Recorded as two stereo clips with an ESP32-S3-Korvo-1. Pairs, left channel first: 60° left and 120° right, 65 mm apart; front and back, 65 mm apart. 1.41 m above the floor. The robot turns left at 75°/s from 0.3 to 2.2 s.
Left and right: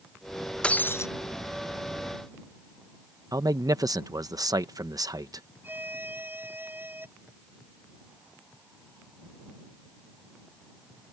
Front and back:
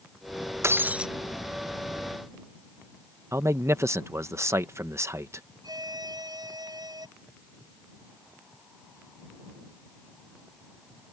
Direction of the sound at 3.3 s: 135° right.